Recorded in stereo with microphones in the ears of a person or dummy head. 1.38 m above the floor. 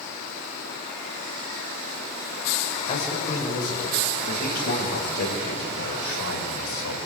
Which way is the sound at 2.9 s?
25° left (ahead or behind).